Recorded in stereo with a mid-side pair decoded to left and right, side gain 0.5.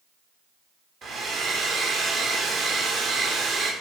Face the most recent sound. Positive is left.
turn(degrees=-55)